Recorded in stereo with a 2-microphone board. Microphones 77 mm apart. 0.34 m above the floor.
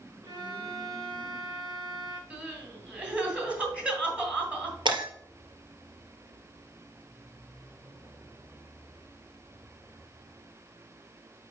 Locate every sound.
0.2 s a violin: 55° right (ahead or behind), 2.5 m
2.3 s crying: 15° right (ahead or behind), 2.5 m
4.8 s breaking glass: 75° right (ahead or behind), 2.5 m